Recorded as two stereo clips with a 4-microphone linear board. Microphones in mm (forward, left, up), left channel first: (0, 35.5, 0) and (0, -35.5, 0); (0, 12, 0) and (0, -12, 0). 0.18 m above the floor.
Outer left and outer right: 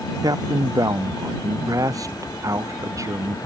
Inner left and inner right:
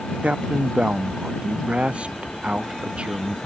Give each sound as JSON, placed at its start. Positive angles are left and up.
{"t": 0.2, "sound": "a man speaking", "side_deg": -55}